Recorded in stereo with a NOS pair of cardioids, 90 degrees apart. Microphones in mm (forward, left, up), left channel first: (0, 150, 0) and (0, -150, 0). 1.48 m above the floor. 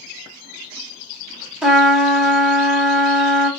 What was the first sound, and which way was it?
A trumpet, 5° right.